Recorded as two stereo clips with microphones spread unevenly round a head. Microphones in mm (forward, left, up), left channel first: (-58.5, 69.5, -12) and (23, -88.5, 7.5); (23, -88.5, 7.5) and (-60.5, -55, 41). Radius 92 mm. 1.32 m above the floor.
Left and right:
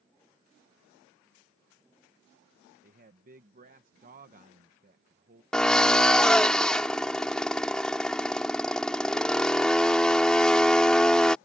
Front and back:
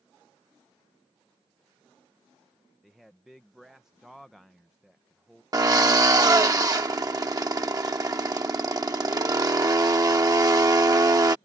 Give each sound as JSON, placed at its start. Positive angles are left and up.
{"t": 2.8, "sound": "a man speaking", "azimuth_deg": -110}
{"t": 5.5, "sound": "a drill", "azimuth_deg": -155}